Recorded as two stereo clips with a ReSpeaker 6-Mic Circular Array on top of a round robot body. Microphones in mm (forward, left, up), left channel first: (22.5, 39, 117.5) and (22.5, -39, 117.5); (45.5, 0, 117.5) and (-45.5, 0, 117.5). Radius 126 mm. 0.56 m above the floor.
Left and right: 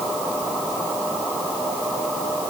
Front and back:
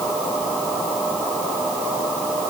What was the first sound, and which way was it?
Only background noise.